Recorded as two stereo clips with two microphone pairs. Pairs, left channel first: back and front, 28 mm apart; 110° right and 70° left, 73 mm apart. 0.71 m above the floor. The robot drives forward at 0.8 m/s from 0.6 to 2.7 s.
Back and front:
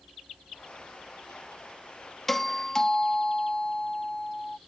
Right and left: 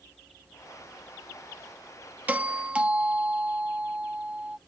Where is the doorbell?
110° left; by 4.6 s 130° left.